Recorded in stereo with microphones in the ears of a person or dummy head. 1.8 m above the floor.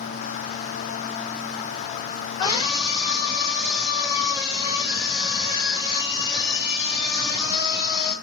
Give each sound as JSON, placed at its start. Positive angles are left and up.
{"t": 2.4, "sound": "a scream", "side_deg": 30, "distance_m": 9.0}